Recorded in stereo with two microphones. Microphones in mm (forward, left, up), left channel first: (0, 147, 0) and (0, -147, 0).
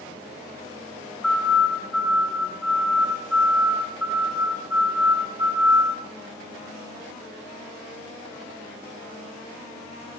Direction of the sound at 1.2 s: 60° left (ahead or behind).